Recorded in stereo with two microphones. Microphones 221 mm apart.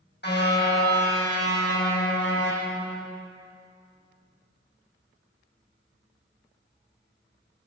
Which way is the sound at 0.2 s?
50° left (ahead or behind).